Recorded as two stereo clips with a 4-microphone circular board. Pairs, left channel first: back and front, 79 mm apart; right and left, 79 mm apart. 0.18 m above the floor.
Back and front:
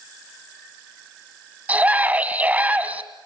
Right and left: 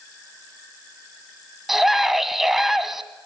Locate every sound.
1.7 s a scream: 15° left, 1.3 m